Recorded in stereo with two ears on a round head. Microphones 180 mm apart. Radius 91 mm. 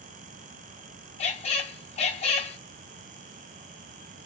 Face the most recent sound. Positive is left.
turn(degrees=35)  # may be behind; listen again after turning